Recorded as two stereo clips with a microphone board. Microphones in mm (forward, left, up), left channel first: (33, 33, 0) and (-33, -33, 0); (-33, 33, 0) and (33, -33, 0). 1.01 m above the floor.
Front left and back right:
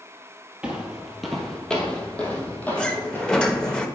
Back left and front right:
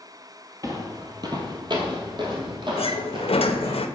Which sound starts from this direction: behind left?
A sliding door, at 2.8 s.